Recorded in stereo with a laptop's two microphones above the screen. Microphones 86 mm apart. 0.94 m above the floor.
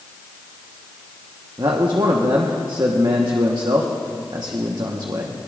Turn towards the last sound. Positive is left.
turn(degrees=-60)  # may be behind; listen again after turning